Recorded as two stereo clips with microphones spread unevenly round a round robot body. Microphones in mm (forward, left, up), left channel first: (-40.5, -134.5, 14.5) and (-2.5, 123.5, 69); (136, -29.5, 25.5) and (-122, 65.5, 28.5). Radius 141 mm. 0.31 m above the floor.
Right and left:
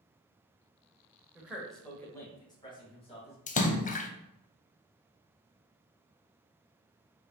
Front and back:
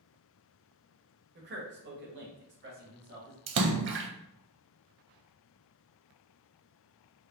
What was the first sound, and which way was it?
A man speaking, 175° left.